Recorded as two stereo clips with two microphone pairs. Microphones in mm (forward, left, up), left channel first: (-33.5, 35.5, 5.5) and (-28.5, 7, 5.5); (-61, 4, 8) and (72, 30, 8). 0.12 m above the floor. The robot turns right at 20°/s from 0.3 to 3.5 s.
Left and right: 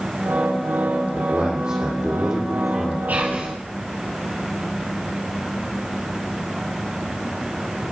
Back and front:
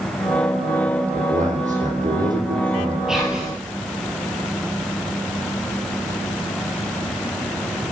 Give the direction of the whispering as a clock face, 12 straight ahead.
2 o'clock.